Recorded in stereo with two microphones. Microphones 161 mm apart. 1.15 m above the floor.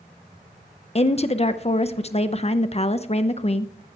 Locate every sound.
0.9 s a woman speaking: 40° left (ahead or behind), 0.5 m